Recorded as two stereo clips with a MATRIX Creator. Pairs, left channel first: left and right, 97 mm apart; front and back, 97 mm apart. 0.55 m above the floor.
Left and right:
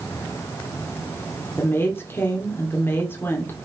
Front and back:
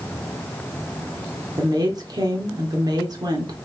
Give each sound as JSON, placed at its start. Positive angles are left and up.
{"t": 1.6, "sound": "a woman speaking", "azimuth_deg": 150, "distance_m": 1.7}